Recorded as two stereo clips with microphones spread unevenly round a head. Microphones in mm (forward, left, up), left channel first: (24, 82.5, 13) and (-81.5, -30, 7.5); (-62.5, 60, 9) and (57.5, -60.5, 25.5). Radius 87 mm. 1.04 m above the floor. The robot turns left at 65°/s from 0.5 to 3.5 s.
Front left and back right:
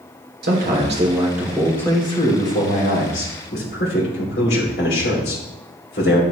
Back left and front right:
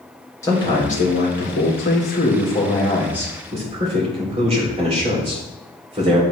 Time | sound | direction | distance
0.4 | a man speaking | 150° right | 3.5 m